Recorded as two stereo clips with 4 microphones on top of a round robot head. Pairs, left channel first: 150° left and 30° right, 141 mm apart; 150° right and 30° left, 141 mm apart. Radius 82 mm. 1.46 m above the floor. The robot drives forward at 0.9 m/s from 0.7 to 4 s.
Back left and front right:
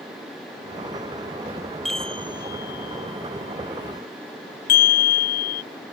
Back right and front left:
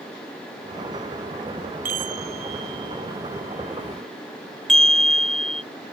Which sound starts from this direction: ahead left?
A chime, at 1.9 s.